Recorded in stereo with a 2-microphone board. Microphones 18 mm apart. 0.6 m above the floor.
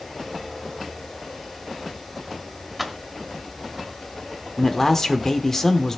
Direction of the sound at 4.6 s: 40° left (ahead or behind).